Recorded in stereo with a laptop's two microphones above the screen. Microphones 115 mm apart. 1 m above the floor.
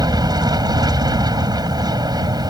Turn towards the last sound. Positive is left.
turn(degrees=-35)  # may be behind; listen again after turning